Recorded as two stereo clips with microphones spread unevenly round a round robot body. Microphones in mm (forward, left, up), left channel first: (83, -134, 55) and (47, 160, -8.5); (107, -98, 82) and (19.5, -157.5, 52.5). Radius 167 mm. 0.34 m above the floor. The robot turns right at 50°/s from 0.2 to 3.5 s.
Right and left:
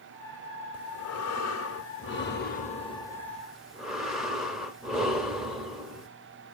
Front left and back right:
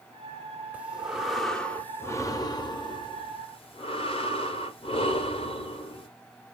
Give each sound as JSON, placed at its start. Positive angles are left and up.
{"t": 0.7, "sound": "breathing", "azimuth_deg": -110, "distance_m": 0.8}